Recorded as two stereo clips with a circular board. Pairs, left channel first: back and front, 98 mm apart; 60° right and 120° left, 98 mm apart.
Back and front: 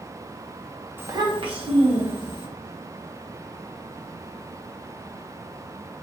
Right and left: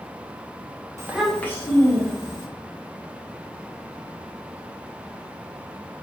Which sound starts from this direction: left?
A child speaking, at 1.0 s.